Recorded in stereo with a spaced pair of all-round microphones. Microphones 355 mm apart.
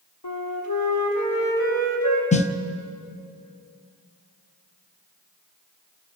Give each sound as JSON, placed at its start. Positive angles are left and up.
{"t": 0.2, "sound": "a flute", "side_deg": 85, "distance_m": 4.5}
{"t": 2.3, "sound": "a snare drum", "side_deg": 20, "distance_m": 1.0}